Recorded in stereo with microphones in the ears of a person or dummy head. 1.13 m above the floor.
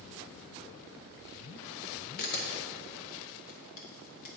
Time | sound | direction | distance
2.2 | a camera shutter | 50° left (ahead or behind) | 0.6 m